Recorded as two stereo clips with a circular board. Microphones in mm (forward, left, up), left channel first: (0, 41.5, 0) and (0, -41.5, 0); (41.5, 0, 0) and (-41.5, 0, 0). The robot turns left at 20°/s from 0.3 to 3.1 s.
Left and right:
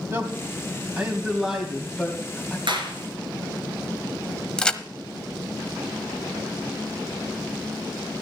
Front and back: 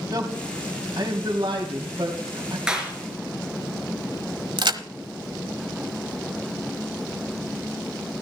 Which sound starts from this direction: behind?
A crack, at 4.6 s.